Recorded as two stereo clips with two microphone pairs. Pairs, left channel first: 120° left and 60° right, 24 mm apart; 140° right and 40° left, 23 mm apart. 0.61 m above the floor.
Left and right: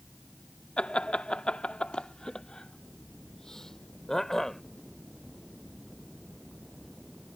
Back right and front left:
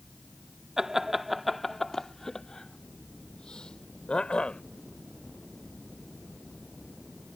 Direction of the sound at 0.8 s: 105° left.